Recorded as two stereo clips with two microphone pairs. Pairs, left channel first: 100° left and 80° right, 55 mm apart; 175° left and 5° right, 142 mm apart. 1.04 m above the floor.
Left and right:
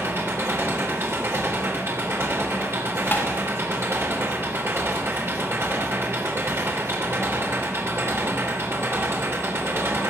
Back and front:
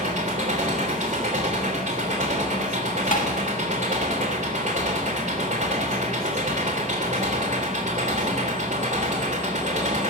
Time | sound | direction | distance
0.0 | an engine running | 40° right | 3 m
3.1 | tapping | 150° left | 1.6 m